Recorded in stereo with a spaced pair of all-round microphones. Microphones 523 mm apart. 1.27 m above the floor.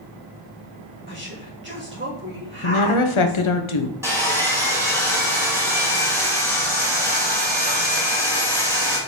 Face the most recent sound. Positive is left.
turn(degrees=-5)  # may be behind; listen again after turning